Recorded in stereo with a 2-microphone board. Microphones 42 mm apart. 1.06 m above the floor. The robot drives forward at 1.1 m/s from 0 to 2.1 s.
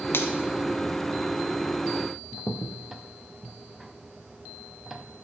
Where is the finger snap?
60° left (ahead or behind), 1.5 m; by 0.3 s 70° left (ahead or behind), 1.4 m.